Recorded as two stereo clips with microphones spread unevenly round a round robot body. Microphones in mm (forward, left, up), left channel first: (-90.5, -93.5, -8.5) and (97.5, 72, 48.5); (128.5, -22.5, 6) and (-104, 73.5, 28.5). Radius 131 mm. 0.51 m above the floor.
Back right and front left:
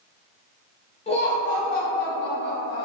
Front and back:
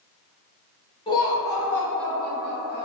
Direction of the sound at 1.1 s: 90° right.